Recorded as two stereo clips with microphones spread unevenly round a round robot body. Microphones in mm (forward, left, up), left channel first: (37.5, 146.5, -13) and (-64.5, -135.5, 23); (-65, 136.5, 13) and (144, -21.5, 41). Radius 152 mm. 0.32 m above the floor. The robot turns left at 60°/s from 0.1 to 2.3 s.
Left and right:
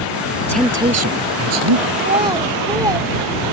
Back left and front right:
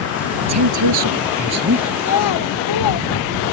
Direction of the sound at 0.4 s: 10° right.